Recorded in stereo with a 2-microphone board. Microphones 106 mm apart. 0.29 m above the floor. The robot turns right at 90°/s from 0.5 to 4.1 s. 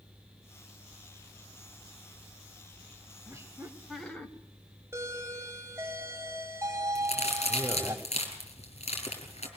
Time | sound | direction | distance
3.3 | laughter | 60° right | 1.5 m
4.9 | a doorbell | 25° right (ahead or behind) | 2 m
7.0 | a crack | 80° left | 4 m